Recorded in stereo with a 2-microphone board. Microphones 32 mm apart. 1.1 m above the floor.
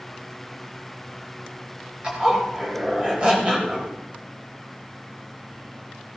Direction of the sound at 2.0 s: 35° right (ahead or behind).